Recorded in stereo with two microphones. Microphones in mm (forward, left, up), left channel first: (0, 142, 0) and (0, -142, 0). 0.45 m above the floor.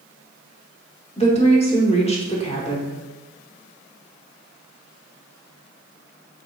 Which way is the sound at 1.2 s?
20° left (ahead or behind).